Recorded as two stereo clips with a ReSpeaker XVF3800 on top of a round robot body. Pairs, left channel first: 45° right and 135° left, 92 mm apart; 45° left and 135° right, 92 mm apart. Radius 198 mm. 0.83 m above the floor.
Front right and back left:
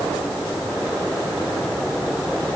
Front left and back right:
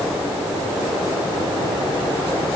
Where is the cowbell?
I don't hear a cowbell.